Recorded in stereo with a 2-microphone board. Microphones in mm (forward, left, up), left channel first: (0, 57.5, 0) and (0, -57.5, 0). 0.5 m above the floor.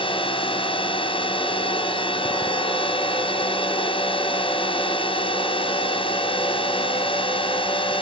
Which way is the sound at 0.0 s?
55° left (ahead or behind).